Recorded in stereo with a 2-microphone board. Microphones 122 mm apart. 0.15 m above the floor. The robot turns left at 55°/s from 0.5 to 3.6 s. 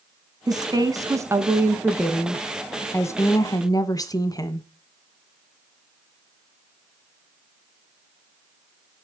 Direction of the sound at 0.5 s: 90° right.